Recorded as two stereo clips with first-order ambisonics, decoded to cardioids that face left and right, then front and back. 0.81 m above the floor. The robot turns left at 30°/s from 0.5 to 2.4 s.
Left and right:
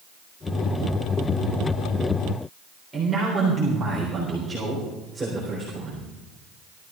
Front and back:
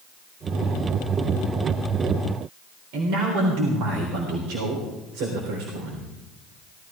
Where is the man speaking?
170° right, 3.5 m.